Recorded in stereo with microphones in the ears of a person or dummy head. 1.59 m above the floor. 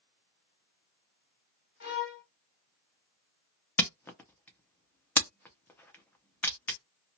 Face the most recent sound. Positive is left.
turn(degrees=10)  # may be behind; listen again after turning